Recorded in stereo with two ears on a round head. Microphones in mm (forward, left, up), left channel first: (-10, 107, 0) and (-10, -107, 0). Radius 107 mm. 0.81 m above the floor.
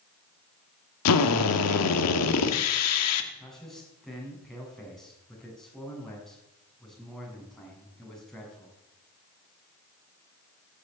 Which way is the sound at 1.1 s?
75° left (ahead or behind).